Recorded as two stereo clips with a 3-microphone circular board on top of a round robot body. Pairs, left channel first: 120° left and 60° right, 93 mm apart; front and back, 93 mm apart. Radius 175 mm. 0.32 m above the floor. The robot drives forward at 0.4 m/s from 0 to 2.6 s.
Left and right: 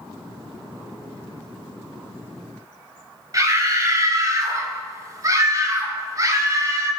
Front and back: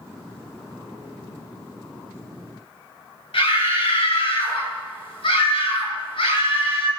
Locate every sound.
3.3 s a scream: 10° right, 5.5 m